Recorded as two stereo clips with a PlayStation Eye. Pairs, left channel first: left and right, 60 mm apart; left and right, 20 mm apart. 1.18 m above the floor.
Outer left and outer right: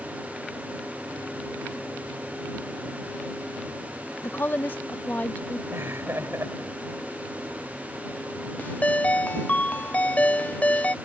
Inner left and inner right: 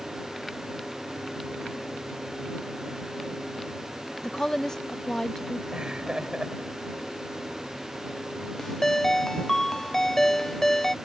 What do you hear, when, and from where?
4.2 s a woman speaking: 40° left (ahead or behind); by 5.6 s 25° left (ahead or behind)
5.7 s laughter: 50° right (ahead or behind)
8.6 s a ringtone: 25° left (ahead or behind)